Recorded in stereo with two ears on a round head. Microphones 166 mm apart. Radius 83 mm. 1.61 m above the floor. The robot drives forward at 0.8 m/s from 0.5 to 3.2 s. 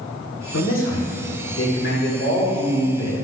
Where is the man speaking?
85° left, 1.8 m; by 3.1 s 40° left (ahead or behind), 2.5 m.